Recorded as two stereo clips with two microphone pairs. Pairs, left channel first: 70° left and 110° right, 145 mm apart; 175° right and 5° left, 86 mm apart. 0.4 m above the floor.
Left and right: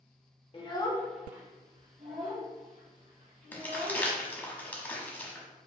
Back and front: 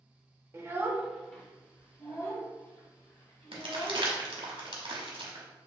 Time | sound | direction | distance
0.5 | a child speaking | 40° left | 0.7 m
3.5 | crumpling | 10° right | 1.0 m